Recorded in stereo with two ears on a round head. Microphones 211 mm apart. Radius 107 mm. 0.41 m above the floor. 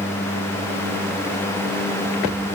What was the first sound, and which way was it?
Only background noise.